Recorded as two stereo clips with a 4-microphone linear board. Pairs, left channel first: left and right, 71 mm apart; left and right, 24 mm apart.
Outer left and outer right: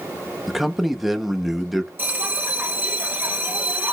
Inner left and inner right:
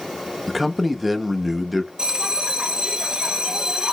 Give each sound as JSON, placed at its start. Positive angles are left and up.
{"t": 0.5, "sound": "a man speaking", "side_deg": -5, "distance_m": 0.6}
{"t": 2.0, "sound": "a bell", "side_deg": -25, "distance_m": 0.7}